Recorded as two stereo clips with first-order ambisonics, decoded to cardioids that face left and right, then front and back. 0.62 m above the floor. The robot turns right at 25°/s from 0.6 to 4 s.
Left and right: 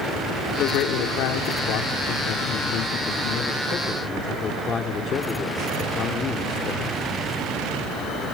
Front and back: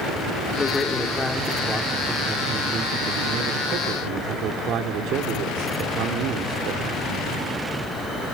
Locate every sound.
0.6 s a man speaking: 65° left, 1.5 m; by 7.0 s 150° left, 1.5 m